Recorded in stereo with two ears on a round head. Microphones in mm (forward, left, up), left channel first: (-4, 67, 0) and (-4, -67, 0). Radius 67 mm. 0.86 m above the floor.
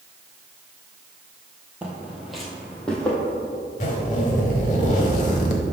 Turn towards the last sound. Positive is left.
turn(degrees=55)  # may be behind; listen again after turning